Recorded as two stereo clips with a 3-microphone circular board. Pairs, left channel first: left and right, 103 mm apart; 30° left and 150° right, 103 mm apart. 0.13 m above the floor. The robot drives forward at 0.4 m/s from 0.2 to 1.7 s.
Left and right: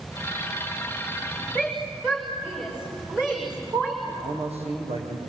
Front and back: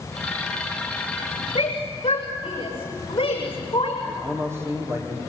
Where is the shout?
10° right, 7.5 m.